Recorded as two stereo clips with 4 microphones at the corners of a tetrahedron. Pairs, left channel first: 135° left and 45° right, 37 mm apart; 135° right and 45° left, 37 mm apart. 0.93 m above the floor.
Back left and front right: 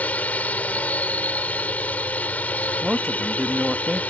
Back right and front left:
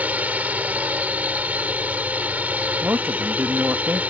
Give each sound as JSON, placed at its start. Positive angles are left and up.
{"t": 0.0, "sound": "a drone", "azimuth_deg": 90}
{"t": 2.8, "sound": "a man speaking", "azimuth_deg": 30}